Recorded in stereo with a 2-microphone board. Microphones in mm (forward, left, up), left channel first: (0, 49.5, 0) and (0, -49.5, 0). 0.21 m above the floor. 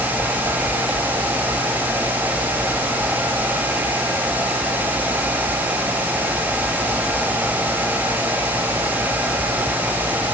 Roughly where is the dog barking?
I don't hear a dog barking.